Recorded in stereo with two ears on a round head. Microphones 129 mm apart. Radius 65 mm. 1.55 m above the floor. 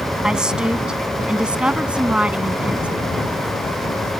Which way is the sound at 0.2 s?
5° right (ahead or behind).